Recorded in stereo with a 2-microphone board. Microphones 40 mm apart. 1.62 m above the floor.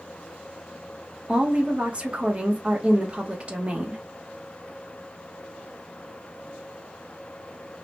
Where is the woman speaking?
30° right (ahead or behind), 1.1 m.